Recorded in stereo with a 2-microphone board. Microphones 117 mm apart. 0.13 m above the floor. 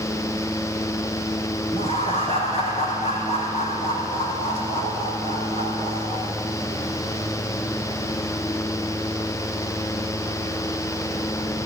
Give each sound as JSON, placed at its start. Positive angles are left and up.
{"t": 1.7, "sound": "laughter", "side_deg": 60, "distance_m": 5.5}